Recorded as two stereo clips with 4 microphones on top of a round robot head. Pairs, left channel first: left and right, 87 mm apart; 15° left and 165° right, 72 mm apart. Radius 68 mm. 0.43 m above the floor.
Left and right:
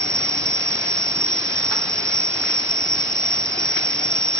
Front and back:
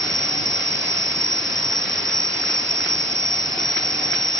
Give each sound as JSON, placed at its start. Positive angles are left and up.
{"t": 0.0, "sound": "an insect", "azimuth_deg": -70}